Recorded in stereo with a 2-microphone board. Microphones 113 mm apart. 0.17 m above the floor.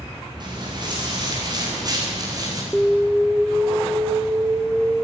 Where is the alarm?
10° right (ahead or behind), 1.0 m.